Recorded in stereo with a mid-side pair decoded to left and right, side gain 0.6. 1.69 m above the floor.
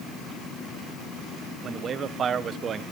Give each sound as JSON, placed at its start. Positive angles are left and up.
{"t": 1.6, "sound": "a man speaking", "azimuth_deg": -45, "distance_m": 1.2}